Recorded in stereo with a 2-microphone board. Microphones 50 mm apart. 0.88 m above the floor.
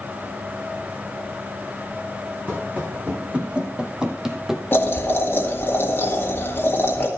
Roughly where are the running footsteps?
Right.